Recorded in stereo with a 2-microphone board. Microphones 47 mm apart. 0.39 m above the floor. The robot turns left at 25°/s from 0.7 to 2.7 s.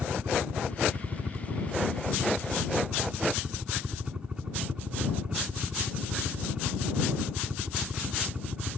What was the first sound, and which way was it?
A helicopter, 110° right.